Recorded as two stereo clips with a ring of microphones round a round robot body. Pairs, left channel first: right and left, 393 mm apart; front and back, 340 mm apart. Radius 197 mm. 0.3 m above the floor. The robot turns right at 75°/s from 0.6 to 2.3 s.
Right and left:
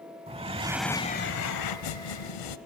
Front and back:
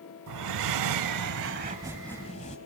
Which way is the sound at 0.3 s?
165° left.